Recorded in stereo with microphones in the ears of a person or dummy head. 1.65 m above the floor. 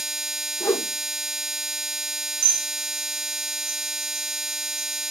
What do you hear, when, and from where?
0.6 s a whoosh: 15° left (ahead or behind), 1.5 m
2.4 s dishes clattering: 80° right, 6 m